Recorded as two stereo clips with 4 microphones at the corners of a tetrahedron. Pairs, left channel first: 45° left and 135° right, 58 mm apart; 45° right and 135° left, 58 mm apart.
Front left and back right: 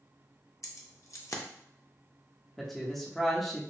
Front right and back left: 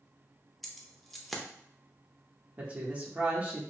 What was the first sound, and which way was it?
Keys jangling, 40° left.